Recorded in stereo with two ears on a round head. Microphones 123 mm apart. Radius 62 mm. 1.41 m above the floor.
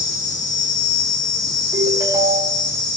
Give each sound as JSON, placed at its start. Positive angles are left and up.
{"t": 0.0, "sound": "an insect", "side_deg": 30, "distance_m": 2.0}
{"t": 1.7, "sound": "a ringtone", "side_deg": -25, "distance_m": 3.0}